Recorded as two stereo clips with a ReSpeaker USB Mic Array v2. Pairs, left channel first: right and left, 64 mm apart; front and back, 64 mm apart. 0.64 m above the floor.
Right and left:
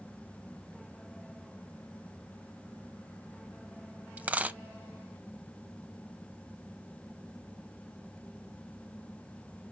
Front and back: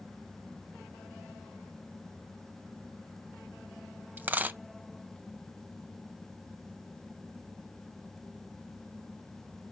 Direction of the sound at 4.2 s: 145° left.